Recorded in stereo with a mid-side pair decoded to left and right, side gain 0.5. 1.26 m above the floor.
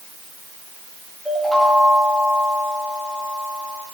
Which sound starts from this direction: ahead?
A chime, at 1.2 s.